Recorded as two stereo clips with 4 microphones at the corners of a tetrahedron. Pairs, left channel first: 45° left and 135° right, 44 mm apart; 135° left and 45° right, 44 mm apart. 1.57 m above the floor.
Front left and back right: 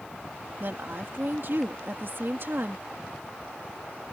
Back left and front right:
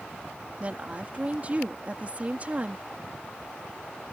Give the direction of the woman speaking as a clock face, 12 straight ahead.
3 o'clock.